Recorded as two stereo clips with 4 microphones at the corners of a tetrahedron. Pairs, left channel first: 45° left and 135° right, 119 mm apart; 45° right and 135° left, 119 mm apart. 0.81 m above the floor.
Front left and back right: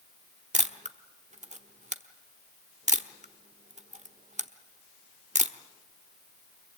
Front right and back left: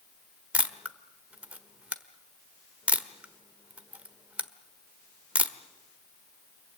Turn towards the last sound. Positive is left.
turn(degrees=-145)